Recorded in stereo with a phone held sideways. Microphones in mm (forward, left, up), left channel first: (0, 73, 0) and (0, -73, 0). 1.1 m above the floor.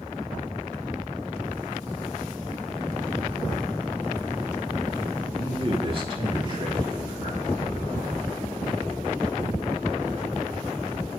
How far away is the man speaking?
About 2 m.